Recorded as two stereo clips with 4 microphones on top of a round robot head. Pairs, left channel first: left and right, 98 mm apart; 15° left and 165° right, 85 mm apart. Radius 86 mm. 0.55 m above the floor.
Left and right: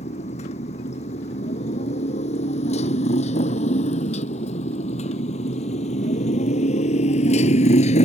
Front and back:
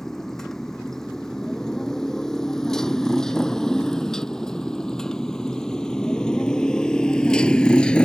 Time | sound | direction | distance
0.0 | a motorcycle | 100° left | ?